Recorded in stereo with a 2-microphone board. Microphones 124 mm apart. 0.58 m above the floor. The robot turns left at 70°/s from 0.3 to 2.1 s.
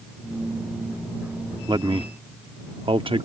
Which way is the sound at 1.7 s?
35° right (ahead or behind).